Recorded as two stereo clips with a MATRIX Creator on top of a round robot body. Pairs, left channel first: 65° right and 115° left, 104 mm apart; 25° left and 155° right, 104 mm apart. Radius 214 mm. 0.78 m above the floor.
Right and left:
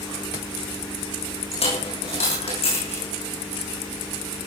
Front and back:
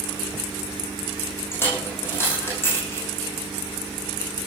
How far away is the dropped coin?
About 9.5 m.